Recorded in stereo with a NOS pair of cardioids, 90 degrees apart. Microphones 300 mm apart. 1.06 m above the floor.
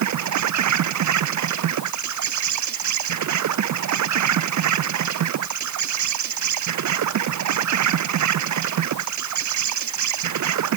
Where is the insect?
70° right.